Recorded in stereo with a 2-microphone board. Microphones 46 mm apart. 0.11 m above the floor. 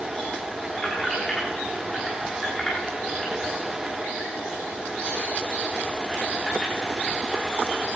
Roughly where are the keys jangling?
Centre.